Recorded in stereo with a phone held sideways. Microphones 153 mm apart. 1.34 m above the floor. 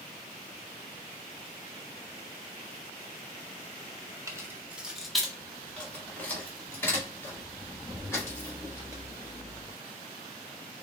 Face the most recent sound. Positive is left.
turn(degrees=20)  # may be behind; listen again after turning